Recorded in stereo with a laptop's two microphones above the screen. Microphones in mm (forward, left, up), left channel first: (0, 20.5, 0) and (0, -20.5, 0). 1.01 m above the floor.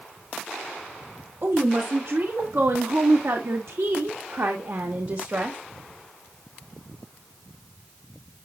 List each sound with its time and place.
1.4 s a woman speaking: 55° right (ahead or behind), 2.5 m; by 5.6 s 60° right (ahead or behind), 1.4 m